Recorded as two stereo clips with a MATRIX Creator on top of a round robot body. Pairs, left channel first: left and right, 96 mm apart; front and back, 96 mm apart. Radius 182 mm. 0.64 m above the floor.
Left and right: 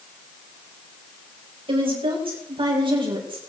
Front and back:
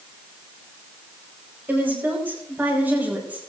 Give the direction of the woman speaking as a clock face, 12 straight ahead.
4 o'clock.